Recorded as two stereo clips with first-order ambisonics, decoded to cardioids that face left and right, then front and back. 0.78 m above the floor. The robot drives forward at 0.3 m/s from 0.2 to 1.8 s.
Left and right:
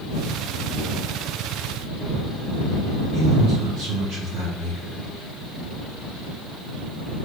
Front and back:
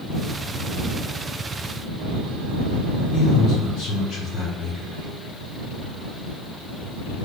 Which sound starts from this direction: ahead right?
A man speaking, at 3.1 s.